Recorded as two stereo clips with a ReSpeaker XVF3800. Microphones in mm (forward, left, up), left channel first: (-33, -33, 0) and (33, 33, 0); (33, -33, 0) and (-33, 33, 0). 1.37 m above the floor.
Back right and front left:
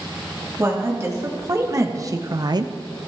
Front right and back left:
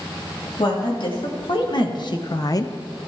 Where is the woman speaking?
15° right, 2.5 m; by 2.7 s 15° left, 0.5 m.